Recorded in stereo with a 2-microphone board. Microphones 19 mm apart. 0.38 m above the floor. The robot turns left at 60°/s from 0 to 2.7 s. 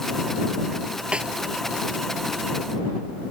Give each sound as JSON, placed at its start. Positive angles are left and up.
{"t": 1.1, "sound": "a snare drum", "side_deg": -60}